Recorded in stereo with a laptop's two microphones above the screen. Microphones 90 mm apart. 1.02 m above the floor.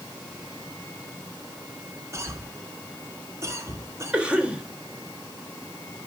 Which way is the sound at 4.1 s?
15° right (ahead or behind).